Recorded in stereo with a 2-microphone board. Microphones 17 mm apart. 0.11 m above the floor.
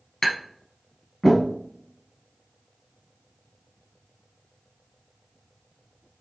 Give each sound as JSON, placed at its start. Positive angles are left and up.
{"t": 0.2, "sound": "tapping", "side_deg": 30, "distance_m": 1.7}